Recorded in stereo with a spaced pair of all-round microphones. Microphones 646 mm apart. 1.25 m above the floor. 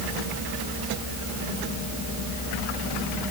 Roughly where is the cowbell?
I don't hear a cowbell.